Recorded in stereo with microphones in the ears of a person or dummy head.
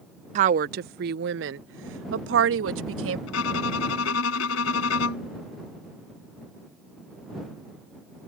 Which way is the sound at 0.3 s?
40° right (ahead or behind).